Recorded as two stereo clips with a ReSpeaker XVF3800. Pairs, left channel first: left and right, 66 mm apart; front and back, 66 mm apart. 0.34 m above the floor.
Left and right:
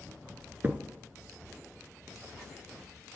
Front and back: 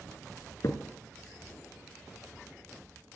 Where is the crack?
30° right, 0.9 m.